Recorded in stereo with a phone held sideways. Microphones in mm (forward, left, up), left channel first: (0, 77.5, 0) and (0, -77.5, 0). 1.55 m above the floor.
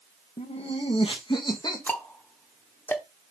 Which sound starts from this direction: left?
Laughter, at 0.4 s.